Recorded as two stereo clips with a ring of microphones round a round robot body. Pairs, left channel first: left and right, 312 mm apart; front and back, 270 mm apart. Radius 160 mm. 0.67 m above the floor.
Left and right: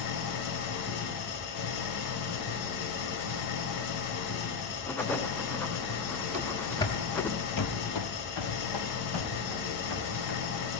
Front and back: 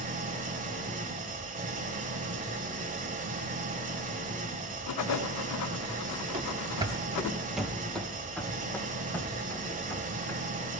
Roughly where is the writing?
Ahead.